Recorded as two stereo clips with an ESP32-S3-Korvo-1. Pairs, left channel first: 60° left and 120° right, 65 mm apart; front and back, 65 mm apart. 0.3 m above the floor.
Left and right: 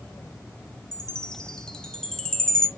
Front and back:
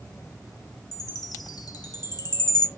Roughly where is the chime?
Ahead.